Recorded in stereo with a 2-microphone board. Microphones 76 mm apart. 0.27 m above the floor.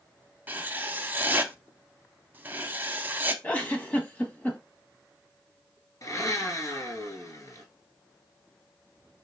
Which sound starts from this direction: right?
Writing, at 0.5 s.